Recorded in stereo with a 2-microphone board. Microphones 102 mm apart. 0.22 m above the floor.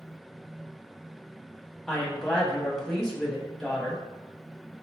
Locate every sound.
1.9 s a woman speaking: 5° left (ahead or behind), 1.0 m